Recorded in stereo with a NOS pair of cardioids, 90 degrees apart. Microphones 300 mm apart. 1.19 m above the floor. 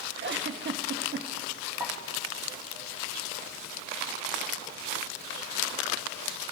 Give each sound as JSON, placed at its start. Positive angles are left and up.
{"t": 0.2, "sound": "a giggle", "azimuth_deg": -35, "distance_m": 1.3}
{"t": 1.8, "sound": "a pop", "azimuth_deg": -5, "distance_m": 4.5}